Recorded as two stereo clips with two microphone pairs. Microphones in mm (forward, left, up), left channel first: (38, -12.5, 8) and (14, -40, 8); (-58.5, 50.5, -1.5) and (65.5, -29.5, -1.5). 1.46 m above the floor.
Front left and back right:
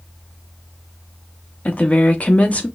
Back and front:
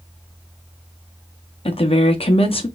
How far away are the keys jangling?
I don't hear keys jangling.